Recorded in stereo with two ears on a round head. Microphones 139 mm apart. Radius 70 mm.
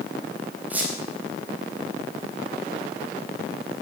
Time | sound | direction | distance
0.7 | a squeak | 10° right (ahead or behind) | 4 m